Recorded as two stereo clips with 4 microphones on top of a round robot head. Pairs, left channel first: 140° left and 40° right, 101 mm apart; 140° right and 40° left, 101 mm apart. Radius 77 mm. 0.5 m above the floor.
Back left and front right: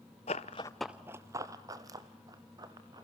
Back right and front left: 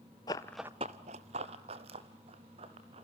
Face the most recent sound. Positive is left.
turn(degrees=10)